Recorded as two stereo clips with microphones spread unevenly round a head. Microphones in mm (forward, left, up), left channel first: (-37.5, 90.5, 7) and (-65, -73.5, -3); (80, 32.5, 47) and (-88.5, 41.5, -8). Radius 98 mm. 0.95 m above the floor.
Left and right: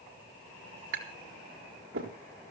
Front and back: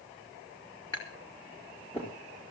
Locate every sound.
0.9 s tapping: 75° right, 4.5 m